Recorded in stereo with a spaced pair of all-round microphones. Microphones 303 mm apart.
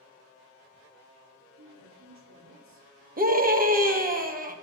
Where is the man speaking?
65° right (ahead or behind), 4 m.